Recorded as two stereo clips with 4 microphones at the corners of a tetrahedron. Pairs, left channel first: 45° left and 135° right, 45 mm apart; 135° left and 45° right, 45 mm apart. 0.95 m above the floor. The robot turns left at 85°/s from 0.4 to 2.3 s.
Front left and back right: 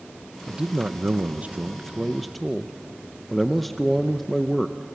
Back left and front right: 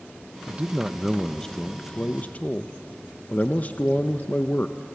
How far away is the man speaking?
About 0.7 m.